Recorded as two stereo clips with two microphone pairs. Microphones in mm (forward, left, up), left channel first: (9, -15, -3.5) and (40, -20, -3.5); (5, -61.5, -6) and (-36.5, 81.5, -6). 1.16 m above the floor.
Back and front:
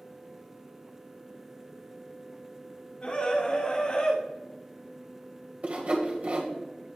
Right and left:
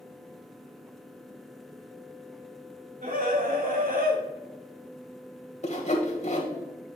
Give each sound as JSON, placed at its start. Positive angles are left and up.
{"t": 3.0, "sound": "a scream", "azimuth_deg": 125, "distance_m": 3.0}
{"t": 5.6, "sound": "sawing", "azimuth_deg": -40, "distance_m": 2.0}